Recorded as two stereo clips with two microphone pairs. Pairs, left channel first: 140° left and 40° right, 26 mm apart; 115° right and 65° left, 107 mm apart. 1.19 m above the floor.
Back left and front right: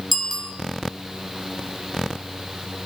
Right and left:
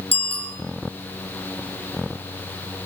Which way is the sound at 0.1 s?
130° right.